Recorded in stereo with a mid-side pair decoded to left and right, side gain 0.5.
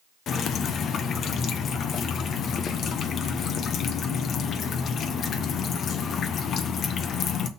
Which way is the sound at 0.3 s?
55° left.